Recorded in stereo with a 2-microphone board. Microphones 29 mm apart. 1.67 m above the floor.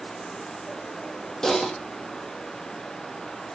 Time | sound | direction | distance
1.4 | typing on a keyboard | 20° left (ahead or behind) | 2.5 m